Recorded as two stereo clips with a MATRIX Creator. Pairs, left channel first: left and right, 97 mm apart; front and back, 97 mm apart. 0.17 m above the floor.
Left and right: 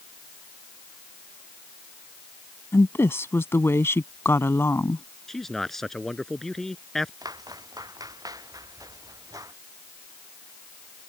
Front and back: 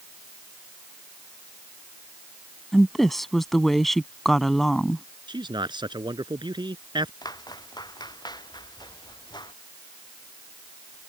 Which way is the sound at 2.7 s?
85° left.